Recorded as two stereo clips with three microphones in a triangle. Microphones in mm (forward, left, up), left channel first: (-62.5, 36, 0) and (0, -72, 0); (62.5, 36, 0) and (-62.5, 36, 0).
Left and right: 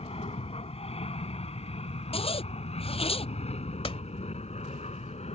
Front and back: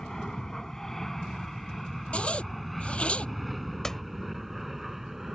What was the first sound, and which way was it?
An aircraft, 85° left.